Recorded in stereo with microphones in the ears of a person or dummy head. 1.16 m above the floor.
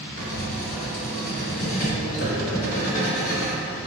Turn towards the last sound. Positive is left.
turn(degrees=40)  # may be behind; listen again after turning